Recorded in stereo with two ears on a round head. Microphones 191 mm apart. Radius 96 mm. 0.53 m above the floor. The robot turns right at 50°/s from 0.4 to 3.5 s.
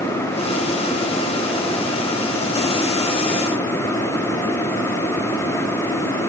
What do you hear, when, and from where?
Only background noise.